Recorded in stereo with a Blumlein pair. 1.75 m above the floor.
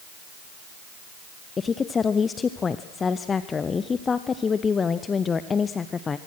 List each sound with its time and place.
1.6 s a woman speaking: 20° left, 0.6 m